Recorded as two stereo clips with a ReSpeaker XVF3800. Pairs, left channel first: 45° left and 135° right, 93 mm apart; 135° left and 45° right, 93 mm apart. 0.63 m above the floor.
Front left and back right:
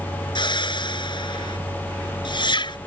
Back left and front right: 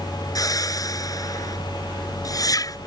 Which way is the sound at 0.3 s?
85° left.